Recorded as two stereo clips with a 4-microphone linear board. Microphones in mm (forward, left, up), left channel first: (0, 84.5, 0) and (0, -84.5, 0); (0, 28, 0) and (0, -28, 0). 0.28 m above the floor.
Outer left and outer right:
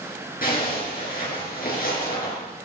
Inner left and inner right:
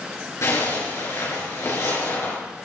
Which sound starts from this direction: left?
A zipper, at 0.4 s.